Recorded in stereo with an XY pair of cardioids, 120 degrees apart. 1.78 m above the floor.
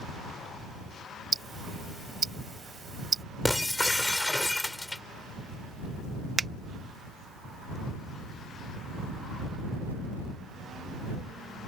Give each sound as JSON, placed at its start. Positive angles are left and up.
{"t": 1.3, "sound": "ticking", "azimuth_deg": -30}
{"t": 3.5, "sound": "breaking glass", "azimuth_deg": 5}
{"t": 6.4, "sound": "a finger snap", "azimuth_deg": -25}